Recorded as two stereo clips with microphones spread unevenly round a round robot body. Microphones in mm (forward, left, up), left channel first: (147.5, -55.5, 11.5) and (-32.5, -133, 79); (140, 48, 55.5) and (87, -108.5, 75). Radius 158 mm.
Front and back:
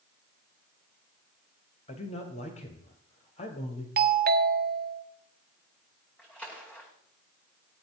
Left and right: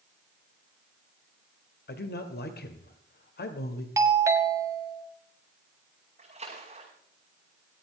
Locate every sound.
1.9 s a man speaking: 80° left, 2 m
4.0 s a doorbell: 175° right, 1.3 m
6.2 s a splash: 60° right, 8 m